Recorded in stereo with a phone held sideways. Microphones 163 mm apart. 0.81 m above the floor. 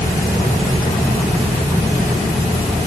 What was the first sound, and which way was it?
Only background noise.